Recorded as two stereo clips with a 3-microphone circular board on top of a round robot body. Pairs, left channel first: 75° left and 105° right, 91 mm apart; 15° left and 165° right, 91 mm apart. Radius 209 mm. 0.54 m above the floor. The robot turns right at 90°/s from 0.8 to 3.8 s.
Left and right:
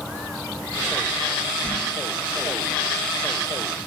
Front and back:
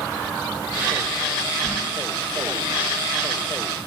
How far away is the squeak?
About 1.2 m.